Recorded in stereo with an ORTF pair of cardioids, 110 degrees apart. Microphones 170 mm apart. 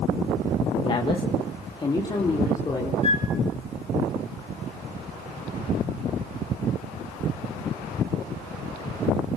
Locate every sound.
0.8 s a woman speaking: 30° left, 1.5 m; by 2.9 s 25° left, 4.5 m
3.0 s a flute: 35° left, 3 m